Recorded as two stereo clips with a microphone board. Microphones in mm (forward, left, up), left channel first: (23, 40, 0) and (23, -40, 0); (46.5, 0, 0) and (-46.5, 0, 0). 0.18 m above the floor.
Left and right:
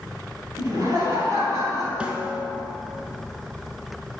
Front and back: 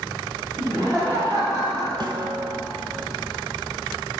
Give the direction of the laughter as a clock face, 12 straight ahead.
4 o'clock.